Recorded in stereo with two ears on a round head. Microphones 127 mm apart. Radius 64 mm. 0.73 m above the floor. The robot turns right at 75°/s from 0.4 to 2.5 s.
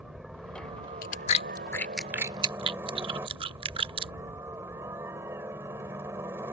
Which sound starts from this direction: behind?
A helicopter, at 0.0 s.